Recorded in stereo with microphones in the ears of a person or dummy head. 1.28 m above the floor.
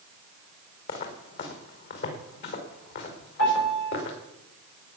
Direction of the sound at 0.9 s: 50° left (ahead or behind).